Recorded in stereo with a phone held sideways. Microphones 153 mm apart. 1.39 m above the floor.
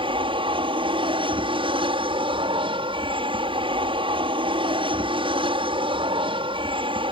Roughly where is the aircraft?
Right.